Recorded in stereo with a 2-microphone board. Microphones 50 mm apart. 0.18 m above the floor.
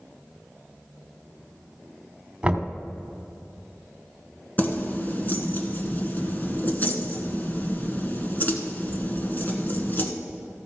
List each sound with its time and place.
2.4 s knocking: 20° right (ahead or behind), 1.3 m
4.6 s keys jangling: 40° left (ahead or behind), 1.3 m